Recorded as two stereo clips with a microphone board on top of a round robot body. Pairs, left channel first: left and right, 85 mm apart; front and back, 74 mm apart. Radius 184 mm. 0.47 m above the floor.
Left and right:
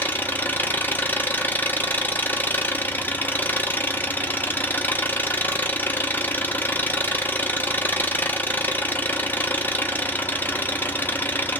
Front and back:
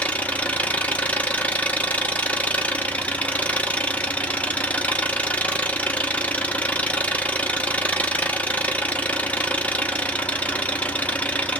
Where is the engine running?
50° left, 0.9 m.